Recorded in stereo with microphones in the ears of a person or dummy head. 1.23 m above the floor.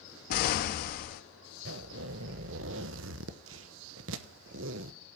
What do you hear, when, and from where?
0.3 s an explosion: 45° left (ahead or behind), 0.9 m
1.6 s a zipper: 70° right (ahead or behind), 0.9 m